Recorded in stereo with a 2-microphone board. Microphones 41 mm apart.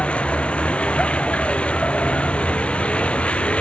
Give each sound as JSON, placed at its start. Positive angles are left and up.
{"t": 0.0, "sound": "a vehicle", "side_deg": 30}